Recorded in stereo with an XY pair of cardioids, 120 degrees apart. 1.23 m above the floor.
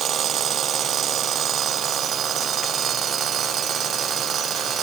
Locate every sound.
Only background noise.